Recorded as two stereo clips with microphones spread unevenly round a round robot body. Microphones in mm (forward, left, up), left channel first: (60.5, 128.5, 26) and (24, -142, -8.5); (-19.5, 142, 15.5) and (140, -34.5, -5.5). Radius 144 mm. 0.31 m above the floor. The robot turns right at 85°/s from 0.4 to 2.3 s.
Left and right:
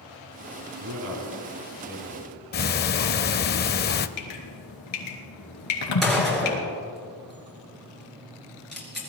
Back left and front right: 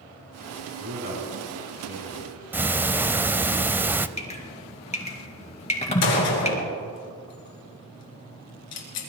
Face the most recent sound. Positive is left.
turn(degrees=170)